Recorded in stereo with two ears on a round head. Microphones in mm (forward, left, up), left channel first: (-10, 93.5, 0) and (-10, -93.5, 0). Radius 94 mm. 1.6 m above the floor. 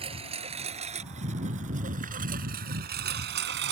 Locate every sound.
0.0 s a lawn mower: 30° right (ahead or behind); by 3.7 s 60° right (ahead or behind)